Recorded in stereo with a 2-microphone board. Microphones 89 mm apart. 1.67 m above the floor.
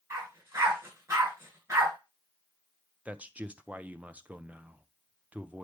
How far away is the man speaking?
About 0.5 m.